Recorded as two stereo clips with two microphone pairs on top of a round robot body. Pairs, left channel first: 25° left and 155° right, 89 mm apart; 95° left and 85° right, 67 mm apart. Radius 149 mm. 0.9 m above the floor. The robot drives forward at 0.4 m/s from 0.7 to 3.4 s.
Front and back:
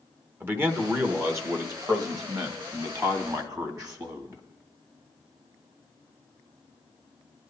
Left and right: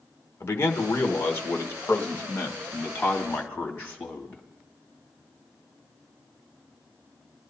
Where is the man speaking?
145° left, 1.5 m; by 4.5 s 160° left, 2.5 m.